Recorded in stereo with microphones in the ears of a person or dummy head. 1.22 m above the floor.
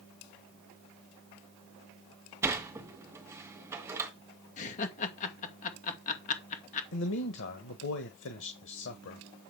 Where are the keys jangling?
No keys jangling in this recording.